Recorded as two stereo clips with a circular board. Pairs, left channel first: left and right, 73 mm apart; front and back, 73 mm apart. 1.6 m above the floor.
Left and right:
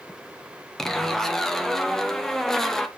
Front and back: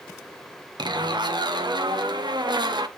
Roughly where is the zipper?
Behind.